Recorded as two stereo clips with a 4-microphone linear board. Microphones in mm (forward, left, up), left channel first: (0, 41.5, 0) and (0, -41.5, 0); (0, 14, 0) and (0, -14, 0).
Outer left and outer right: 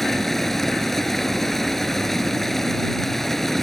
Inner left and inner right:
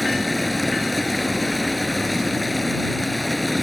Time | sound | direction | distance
0.0 | running water | 5° left (ahead or behind) | ?